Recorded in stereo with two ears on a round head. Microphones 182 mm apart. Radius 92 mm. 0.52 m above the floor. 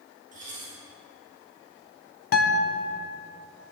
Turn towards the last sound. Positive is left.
turn(degrees=50)  # may be behind; listen again after turning